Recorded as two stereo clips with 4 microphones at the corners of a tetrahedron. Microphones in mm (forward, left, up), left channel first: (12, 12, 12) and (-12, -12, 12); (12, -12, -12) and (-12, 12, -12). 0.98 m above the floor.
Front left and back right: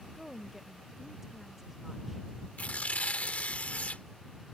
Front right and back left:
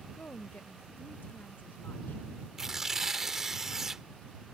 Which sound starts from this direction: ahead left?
Tearing paper, at 2.6 s.